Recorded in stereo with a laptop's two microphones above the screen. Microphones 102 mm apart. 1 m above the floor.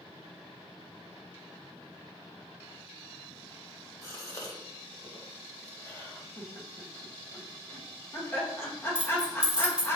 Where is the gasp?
30° left (ahead or behind), 1.2 m.